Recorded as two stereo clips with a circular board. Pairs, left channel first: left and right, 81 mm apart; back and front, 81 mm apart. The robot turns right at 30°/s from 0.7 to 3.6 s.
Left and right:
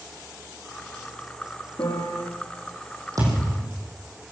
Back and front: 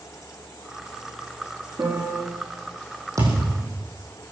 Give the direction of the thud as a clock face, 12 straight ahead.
2 o'clock.